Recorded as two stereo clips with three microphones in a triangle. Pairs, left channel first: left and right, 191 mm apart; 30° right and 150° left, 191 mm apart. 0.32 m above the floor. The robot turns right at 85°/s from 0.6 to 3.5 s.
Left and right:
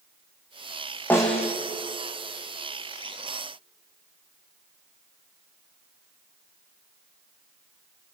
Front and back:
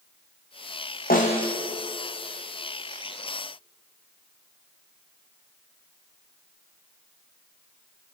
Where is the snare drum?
10° left, 3.5 m; by 1.6 s 45° left, 3.5 m.